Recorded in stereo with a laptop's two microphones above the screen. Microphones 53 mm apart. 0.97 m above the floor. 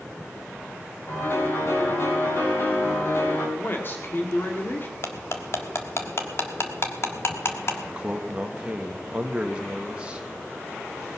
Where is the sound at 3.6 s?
40° left (ahead or behind), 1.8 m.